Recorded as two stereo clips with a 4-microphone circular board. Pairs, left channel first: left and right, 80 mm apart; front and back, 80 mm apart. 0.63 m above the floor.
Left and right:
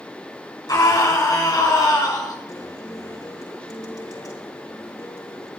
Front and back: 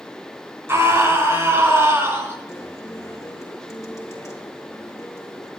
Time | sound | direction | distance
0.7 | a scream | 125° left | 7 m
2.5 | a guitar | 55° left | 5 m